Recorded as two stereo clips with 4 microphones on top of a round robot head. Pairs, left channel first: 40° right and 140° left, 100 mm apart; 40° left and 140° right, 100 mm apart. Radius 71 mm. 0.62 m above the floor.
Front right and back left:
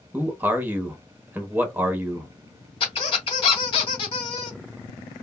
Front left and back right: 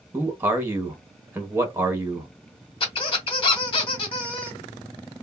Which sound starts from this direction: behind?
A man speaking, at 0.1 s.